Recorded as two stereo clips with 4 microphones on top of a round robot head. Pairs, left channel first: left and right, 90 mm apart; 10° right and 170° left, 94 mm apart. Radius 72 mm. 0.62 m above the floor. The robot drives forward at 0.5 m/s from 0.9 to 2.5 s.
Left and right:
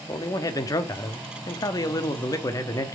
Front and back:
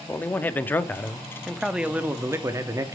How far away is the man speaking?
About 0.9 m.